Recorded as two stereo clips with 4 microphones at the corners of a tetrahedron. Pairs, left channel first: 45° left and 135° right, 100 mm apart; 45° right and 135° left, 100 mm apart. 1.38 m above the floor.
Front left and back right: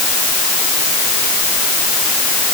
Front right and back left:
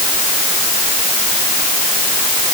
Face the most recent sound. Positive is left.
No sound to turn to.